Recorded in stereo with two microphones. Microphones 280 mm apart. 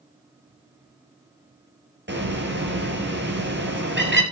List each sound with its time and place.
2.1 s a bird: 40° right (ahead or behind), 2.5 m